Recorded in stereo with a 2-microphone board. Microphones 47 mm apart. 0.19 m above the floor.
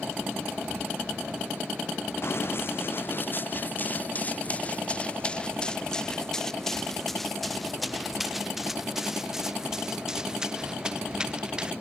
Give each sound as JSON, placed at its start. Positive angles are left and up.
{"t": 2.2, "sound": "running footsteps", "side_deg": 55}